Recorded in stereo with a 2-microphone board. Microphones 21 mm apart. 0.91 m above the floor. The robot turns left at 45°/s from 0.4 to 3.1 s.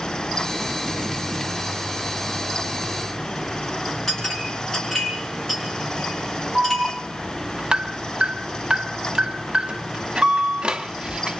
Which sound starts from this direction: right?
An alarm, at 6.5 s.